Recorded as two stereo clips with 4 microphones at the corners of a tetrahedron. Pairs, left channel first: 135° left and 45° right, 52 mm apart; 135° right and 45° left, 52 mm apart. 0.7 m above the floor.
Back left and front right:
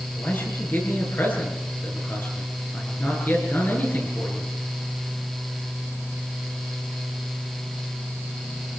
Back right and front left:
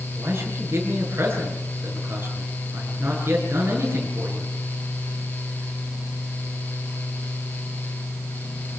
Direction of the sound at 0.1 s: 90° left.